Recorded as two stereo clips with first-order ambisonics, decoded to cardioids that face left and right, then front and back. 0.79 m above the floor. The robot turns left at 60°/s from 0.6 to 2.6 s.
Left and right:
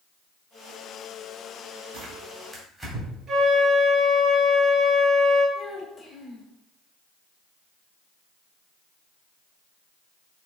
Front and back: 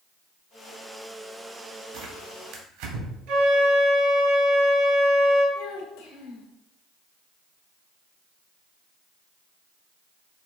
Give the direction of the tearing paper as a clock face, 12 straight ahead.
5 o'clock.